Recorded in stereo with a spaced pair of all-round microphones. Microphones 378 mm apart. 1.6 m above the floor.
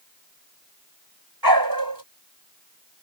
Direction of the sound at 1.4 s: 60° right (ahead or behind).